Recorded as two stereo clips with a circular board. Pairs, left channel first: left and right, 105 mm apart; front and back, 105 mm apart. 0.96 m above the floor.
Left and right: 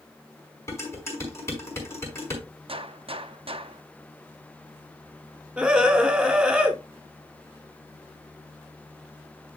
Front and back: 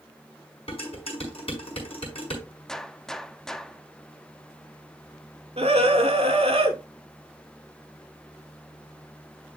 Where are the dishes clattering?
25° left, 5 m.